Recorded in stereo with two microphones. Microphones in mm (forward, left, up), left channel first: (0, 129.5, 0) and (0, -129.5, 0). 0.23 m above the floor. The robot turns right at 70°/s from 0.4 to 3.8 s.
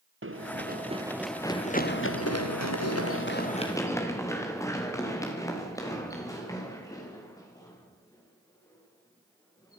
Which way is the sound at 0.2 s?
50° right (ahead or behind).